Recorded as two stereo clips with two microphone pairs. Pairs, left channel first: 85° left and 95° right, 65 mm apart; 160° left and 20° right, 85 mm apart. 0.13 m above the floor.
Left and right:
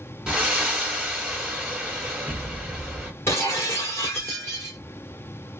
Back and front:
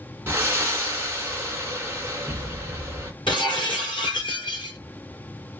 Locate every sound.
0.3 s breathing: 35° right, 1.3 m
3.3 s breaking glass: 135° left, 2 m